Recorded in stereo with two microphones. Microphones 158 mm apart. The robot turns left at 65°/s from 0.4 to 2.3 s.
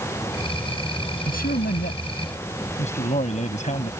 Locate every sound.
1.3 s a man speaking: 115° left; by 3.9 s 50° left